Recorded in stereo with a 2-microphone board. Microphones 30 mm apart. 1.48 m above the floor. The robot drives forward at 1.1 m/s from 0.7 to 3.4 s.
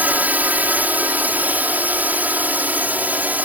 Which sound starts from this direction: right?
A drone, at 0.0 s.